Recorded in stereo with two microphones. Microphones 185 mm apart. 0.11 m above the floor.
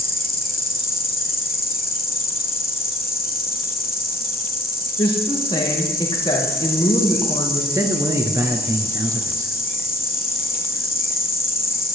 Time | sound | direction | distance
0.0 | an insect | 60° left (ahead or behind) | 1.7 m
5.0 | a woman speaking | 30° left (ahead or behind) | 5 m
7.7 | a man speaking | 20° right (ahead or behind) | 2 m